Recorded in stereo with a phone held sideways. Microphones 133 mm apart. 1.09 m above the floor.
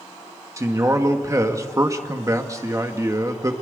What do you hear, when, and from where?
0.6 s a man speaking: 25° right (ahead or behind), 1.9 m